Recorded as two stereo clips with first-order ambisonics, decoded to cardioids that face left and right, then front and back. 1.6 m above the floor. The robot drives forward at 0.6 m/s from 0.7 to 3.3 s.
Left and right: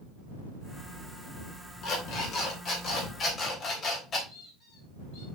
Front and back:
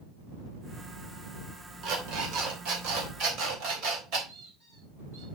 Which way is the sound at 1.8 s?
135° left.